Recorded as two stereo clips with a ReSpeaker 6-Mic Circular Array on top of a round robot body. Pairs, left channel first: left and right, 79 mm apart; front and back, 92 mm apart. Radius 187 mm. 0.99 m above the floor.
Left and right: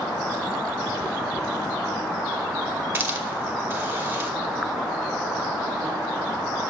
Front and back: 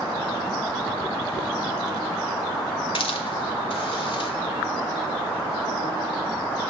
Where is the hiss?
25° right, 1.6 m.